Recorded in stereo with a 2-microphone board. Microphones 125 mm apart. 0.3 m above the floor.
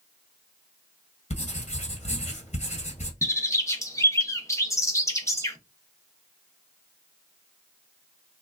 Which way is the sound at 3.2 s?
25° left (ahead or behind).